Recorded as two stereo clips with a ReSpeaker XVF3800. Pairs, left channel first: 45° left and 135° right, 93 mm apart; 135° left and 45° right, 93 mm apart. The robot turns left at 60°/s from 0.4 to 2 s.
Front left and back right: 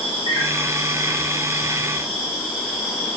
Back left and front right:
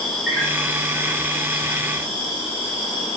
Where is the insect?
50° left, 1.1 m; by 3.2 s 45° right, 1.1 m.